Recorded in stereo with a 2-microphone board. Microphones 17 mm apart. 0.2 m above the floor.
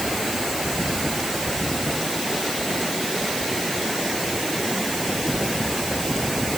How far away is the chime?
I don't hear a chime.